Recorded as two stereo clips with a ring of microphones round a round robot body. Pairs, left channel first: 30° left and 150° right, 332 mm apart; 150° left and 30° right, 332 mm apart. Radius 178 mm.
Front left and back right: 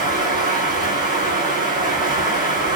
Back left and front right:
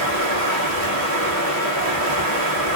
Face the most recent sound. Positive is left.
turn(degrees=-70)